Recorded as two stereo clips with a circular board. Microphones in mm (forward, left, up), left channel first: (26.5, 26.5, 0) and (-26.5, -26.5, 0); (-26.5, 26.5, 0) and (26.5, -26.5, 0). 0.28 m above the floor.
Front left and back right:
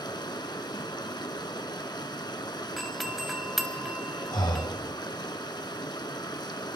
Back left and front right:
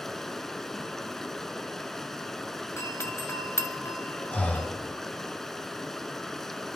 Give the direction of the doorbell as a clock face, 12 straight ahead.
7 o'clock.